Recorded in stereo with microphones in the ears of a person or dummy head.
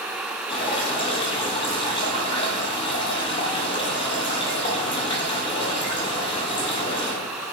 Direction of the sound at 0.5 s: 30° left (ahead or behind).